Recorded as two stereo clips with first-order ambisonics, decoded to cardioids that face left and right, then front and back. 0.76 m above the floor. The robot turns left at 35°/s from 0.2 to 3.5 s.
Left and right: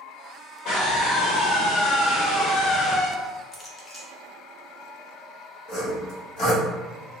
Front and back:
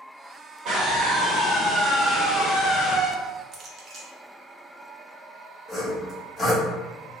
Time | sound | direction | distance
0.7 | a scream | 135° left | 1.4 m
3.5 | a clink | 150° left | 0.5 m
5.7 | sawing | 75° left | 1.5 m